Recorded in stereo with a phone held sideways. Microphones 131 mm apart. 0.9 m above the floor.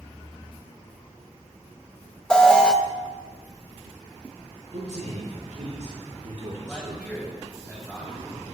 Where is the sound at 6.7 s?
10° right (ahead or behind), 5 m.